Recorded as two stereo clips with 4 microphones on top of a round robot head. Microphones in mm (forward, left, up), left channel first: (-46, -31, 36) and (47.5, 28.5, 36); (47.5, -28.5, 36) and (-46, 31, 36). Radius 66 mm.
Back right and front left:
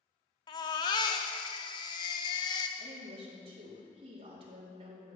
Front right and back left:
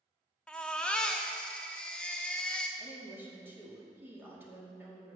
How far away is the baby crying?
About 0.7 m.